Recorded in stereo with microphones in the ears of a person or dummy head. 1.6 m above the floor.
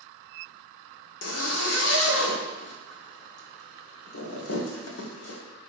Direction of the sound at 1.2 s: 85° left.